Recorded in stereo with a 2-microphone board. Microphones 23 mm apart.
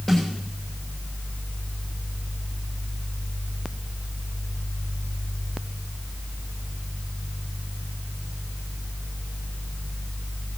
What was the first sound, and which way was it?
A snare drum, 20° left (ahead or behind).